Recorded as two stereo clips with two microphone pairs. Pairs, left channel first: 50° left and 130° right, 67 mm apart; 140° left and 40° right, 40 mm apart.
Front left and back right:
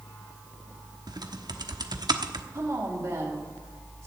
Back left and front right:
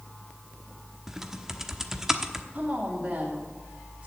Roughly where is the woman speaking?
Right.